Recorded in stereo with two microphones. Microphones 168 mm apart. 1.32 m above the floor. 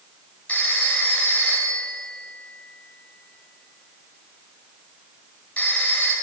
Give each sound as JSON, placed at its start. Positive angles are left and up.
{"t": 0.5, "sound": "a phone ringing", "side_deg": 10, "distance_m": 3.5}